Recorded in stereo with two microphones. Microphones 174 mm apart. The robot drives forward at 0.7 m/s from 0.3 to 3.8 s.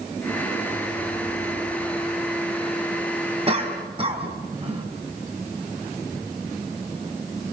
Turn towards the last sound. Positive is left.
turn(degrees=-35)  # may be behind; listen again after turning